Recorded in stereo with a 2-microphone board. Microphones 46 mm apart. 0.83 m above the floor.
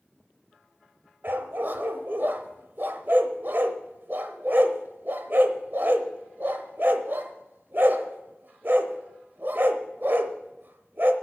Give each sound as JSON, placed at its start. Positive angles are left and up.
{"t": 1.2, "sound": "a dog barking", "side_deg": -55, "distance_m": 0.8}